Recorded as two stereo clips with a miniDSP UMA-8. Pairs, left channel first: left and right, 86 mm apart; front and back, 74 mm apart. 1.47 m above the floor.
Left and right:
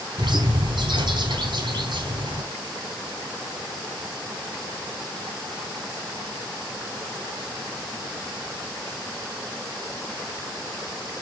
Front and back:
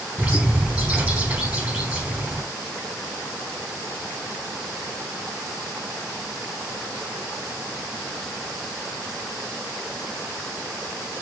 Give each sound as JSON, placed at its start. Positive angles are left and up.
{"t": 0.2, "sound": "a bird", "azimuth_deg": -115, "distance_m": 3.0}